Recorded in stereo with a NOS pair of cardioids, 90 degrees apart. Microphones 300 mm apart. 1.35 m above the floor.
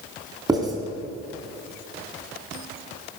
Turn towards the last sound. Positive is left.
turn(degrees=-15)